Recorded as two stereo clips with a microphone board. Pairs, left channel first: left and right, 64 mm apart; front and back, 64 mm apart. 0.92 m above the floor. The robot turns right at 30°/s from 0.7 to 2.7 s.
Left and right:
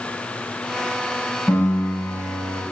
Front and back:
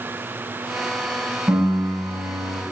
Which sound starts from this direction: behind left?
A piano, at 1.5 s.